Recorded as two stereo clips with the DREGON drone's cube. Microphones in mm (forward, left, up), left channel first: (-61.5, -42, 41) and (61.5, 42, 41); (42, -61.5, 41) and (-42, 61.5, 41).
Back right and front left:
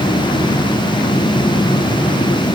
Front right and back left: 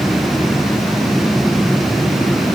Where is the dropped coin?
I don't hear a dropped coin.